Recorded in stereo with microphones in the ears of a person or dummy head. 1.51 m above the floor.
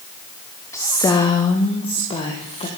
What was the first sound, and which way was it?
A woman speaking, 5° left (ahead or behind).